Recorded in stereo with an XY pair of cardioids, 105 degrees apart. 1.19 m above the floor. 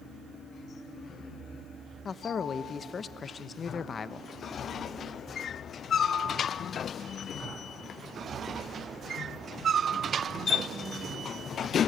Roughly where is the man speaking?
Ahead left.